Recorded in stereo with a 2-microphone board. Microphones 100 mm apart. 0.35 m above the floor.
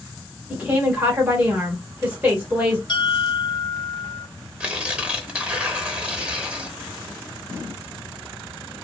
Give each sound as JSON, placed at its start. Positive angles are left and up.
{"t": 0.5, "sound": "a woman speaking", "side_deg": -15, "distance_m": 1.3}
{"t": 2.9, "sound": "a bell", "side_deg": 50, "distance_m": 0.8}
{"t": 4.6, "sound": "tearing paper", "side_deg": -15, "distance_m": 0.8}